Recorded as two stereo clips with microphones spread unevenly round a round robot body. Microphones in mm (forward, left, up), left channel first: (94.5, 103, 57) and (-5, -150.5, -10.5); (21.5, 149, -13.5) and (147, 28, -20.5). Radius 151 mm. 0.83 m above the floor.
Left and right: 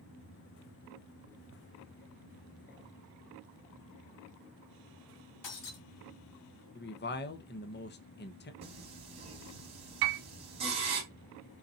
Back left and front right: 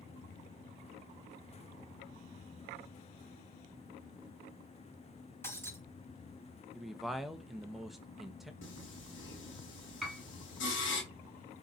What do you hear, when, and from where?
5.4 s breaking glass: 60° left, 4.5 m
6.8 s a man speaking: 40° left, 1.0 m
8.6 s singing: 175° left, 3 m
10.0 s a piano: 135° right, 1.3 m